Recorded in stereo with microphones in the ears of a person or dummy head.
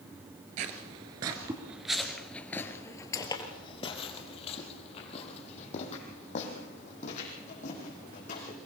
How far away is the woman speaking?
I don't hear a woman speaking.